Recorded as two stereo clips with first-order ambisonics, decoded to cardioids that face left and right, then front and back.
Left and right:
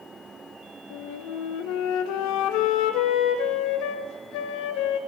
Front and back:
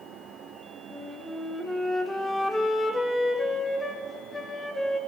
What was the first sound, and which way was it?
A flute, 85° left.